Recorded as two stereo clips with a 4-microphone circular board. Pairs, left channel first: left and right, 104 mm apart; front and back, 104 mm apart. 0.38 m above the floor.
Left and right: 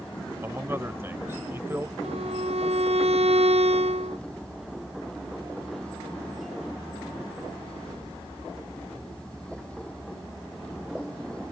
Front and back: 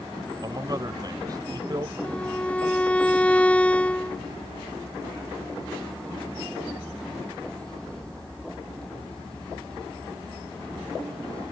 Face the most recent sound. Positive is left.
turn(degrees=-75)